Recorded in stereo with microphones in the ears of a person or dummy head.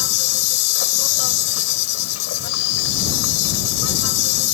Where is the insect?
80° left.